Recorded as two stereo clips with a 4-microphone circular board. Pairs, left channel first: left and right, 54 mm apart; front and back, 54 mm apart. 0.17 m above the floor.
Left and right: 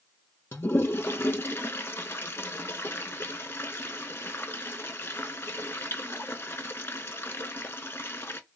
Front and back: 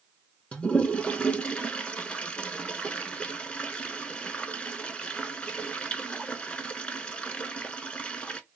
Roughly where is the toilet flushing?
Ahead left.